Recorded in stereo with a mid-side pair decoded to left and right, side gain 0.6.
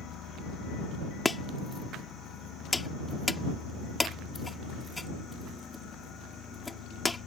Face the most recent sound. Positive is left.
turn(degrees=15)